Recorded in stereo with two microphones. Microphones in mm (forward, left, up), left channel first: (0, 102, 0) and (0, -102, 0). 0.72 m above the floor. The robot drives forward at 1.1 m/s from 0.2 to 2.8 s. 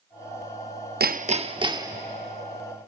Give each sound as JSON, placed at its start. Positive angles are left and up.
{"t": 1.0, "sound": "hammering", "side_deg": -50, "distance_m": 0.5}